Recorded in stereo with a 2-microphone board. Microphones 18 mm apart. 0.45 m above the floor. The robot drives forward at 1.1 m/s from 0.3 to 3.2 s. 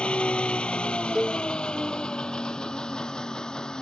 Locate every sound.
0.0 s an engine running: 80° left; by 3.8 s 45° left (ahead or behind)
1.1 s a cowbell: 25° right (ahead or behind)